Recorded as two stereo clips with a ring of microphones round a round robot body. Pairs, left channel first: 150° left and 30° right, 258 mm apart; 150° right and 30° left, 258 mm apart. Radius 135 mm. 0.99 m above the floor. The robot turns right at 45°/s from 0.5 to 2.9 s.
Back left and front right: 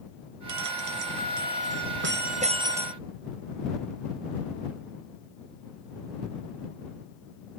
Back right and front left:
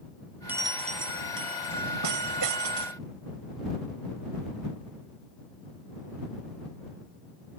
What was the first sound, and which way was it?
A bell, 55° right.